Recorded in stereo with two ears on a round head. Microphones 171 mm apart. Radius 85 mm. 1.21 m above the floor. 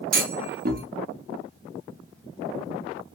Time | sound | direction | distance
0.1 | a clunk | 50° right (ahead or behind) | 0.7 m